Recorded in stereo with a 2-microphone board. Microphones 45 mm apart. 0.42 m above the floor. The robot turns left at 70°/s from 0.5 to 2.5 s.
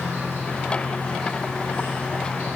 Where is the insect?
60° left, 1.2 m; by 2.6 s 80° right, 1.2 m.